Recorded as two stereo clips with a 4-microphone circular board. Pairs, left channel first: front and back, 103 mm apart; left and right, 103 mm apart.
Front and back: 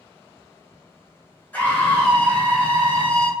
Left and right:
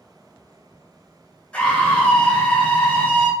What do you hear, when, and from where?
1.5 s a scream: 35° left, 1.1 m